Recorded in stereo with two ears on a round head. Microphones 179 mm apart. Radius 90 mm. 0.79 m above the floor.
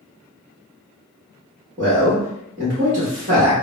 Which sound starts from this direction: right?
A man speaking, at 1.8 s.